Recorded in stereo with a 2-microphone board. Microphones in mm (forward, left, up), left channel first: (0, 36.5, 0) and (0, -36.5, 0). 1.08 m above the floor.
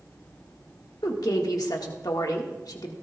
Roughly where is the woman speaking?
Left.